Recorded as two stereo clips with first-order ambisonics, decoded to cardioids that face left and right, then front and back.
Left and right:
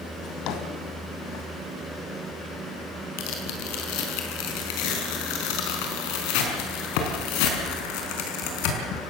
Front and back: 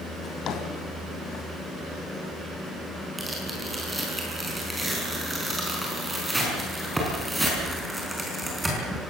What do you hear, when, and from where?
0.2 s a drawer: 55° left, 2 m
3.2 s tearing paper: 95° left, 5 m